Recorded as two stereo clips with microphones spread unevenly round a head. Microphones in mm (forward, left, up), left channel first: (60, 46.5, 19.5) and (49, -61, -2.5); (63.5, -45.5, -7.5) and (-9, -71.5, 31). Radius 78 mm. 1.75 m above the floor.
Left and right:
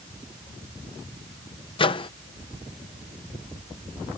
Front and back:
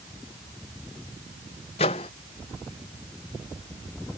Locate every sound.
1.8 s a microwave: 55° left